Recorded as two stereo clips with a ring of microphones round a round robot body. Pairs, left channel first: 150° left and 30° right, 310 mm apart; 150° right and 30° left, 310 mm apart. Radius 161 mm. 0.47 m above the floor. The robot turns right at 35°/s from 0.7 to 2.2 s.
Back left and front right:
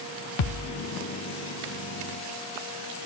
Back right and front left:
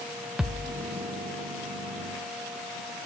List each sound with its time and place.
0.4 s a thud: 120° left, 0.7 m